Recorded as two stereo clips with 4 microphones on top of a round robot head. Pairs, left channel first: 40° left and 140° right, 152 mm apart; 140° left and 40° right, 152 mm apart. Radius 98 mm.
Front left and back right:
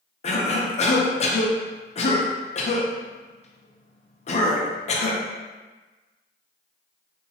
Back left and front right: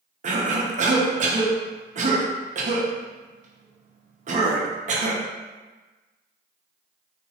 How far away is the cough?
About 0.7 m.